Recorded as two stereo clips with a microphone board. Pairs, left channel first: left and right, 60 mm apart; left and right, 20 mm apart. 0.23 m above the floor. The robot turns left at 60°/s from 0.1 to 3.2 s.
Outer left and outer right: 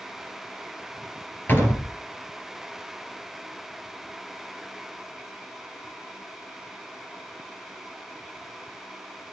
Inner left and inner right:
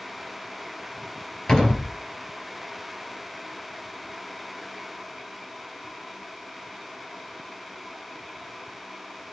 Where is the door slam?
35° left (ahead or behind), 3.5 m; by 1.9 s 55° left (ahead or behind), 3.5 m.